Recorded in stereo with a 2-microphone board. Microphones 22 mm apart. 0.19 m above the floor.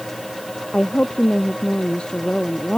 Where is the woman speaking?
50° left (ahead or behind).